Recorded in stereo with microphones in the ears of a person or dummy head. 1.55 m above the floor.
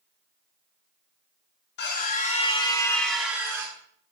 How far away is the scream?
About 1.6 m.